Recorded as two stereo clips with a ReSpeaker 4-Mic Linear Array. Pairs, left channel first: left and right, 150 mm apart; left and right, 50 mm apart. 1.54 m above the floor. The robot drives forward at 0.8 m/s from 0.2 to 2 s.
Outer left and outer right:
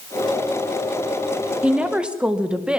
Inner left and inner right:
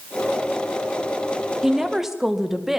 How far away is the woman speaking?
About 1.7 m.